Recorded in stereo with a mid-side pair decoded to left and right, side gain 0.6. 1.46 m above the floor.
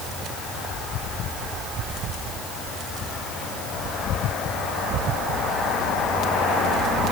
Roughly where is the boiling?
I don't hear boiling.